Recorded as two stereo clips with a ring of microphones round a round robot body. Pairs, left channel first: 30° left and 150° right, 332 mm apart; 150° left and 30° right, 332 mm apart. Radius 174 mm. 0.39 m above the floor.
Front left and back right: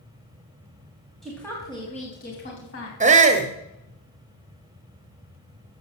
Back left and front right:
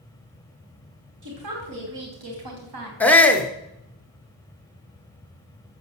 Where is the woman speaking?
60° right, 3.5 m; by 2.9 s 15° right, 3.5 m.